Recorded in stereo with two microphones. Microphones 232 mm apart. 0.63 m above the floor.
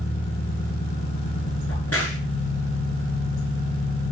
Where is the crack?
85° left, 8 m.